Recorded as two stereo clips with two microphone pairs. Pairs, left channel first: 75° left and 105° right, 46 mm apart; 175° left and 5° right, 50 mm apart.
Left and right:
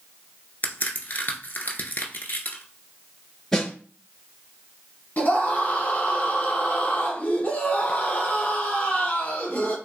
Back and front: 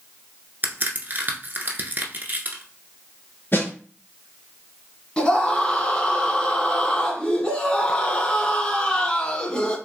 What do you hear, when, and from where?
0.6 s a crack: 35° left, 0.9 m
3.5 s a snare drum: 155° left, 2.5 m
5.2 s a scream: 120° left, 1.4 m